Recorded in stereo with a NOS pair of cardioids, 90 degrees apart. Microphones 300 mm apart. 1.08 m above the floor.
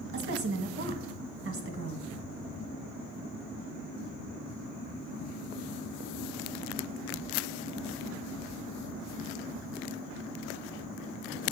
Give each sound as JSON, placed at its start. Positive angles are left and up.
{"t": 0.1, "sound": "a woman speaking", "azimuth_deg": -45, "distance_m": 1.5}